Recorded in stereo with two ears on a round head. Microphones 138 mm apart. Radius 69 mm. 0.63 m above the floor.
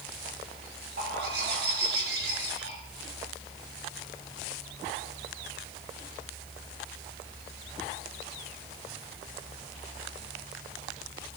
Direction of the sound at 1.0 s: 75° right (ahead or behind).